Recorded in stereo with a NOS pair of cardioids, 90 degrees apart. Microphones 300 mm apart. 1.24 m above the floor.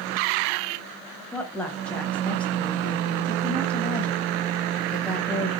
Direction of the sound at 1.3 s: 5° left.